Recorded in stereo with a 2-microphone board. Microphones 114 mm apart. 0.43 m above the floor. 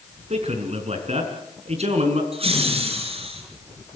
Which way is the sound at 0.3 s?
70° right (ahead or behind).